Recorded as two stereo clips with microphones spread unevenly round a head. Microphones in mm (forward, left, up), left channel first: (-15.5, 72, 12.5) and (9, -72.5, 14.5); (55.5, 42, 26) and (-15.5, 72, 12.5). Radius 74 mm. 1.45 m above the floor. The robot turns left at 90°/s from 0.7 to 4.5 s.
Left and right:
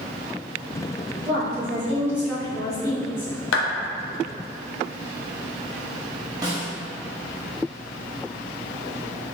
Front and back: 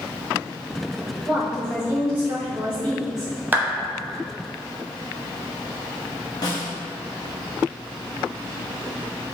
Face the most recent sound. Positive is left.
turn(degrees=-15)